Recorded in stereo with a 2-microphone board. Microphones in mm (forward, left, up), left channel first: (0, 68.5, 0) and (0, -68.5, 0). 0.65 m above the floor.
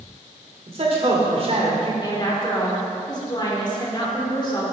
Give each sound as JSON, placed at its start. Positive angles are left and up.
{"t": 0.7, "sound": "a man speaking", "side_deg": -45, "distance_m": 2.0}
{"t": 2.0, "sound": "a woman speaking", "side_deg": 35, "distance_m": 1.8}